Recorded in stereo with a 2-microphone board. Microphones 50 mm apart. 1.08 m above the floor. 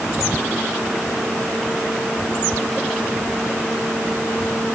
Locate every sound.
Only background noise.